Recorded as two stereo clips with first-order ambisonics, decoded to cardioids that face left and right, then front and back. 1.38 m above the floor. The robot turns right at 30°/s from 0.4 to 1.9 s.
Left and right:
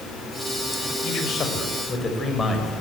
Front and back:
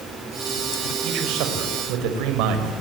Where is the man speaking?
135° left, 6 m; by 2.7 s 165° left, 6 m.